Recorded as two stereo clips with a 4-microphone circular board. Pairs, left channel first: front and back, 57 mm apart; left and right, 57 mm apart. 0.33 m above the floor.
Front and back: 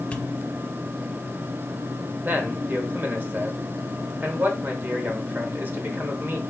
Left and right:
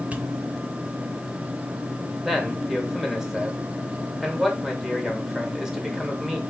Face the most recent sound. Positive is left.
turn(degrees=-170)